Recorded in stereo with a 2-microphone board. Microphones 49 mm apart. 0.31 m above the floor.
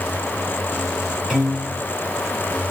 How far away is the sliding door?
No sliding door in this recording.